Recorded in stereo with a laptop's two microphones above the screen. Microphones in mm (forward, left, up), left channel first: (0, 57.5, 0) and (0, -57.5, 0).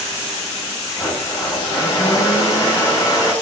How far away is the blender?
About 6.5 m.